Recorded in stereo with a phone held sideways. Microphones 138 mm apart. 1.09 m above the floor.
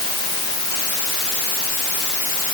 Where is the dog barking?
I don't hear a dog barking.